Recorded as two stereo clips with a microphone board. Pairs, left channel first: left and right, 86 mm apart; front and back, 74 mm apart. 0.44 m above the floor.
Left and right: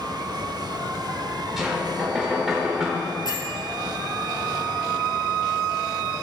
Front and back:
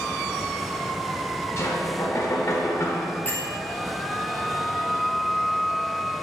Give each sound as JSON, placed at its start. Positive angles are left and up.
{"t": 1.6, "sound": "knocking", "azimuth_deg": -5, "distance_m": 1.1}
{"t": 3.2, "sound": "a bell", "azimuth_deg": 60, "distance_m": 1.4}